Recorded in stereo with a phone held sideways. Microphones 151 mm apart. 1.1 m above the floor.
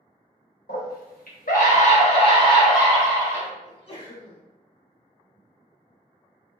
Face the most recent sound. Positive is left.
turn(degrees=40)  # may be behind; listen again after turning